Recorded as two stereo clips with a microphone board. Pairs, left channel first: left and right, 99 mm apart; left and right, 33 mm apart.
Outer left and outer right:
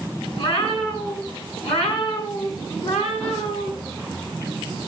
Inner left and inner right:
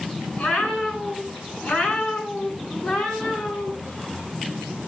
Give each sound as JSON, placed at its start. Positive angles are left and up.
{"t": 0.4, "sound": "a cat meowing", "side_deg": 60, "distance_m": 5.5}